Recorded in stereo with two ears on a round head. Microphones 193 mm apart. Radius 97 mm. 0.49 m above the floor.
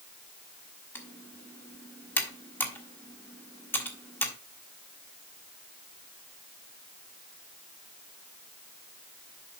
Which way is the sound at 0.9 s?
10° left (ahead or behind).